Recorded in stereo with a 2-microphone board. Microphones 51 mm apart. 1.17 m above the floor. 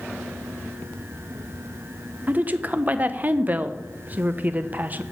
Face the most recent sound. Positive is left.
turn(degrees=-35)  # may be behind; listen again after turning